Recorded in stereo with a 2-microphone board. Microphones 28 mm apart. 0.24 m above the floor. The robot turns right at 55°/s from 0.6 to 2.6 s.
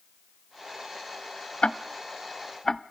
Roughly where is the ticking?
Left.